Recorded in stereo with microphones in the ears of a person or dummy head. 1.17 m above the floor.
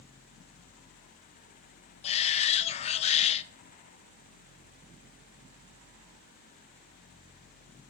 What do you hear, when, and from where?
2.0 s a shout: 25° left (ahead or behind), 0.7 m